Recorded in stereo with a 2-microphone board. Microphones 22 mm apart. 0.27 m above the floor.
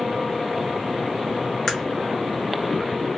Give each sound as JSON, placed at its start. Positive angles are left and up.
{"t": 1.7, "sound": "a crack", "side_deg": 20, "distance_m": 1.3}